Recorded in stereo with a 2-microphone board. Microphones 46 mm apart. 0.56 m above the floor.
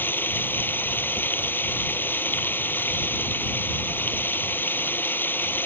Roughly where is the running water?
Left.